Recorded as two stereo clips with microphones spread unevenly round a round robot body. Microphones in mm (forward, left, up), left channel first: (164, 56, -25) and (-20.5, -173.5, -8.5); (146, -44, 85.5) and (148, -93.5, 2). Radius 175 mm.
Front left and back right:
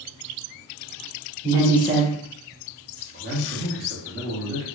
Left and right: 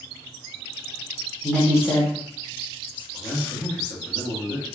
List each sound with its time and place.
1.4 s a woman speaking: 55° right, 1.4 m; by 3.0 s 35° left, 1.3 m
3.1 s a man speaking: 140° right, 1.3 m